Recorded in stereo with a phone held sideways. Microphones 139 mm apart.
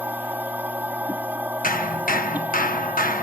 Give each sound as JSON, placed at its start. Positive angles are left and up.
{"t": 0.0, "sound": "a machine running", "side_deg": -10}
{"t": 1.6, "sound": "hammering", "side_deg": 75}